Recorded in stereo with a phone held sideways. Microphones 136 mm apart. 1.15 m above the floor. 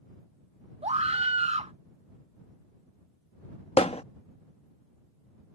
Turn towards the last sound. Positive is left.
turn(degrees=50)  # may be behind; listen again after turning